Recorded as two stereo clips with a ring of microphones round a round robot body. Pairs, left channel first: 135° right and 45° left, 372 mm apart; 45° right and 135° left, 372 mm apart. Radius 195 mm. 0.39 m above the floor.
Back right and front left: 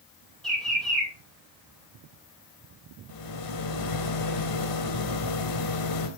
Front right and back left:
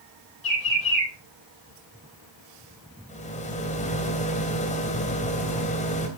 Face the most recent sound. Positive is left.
turn(degrees=-115)